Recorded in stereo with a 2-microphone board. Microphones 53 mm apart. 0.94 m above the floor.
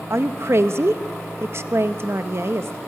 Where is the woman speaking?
55° right (ahead or behind), 0.9 m.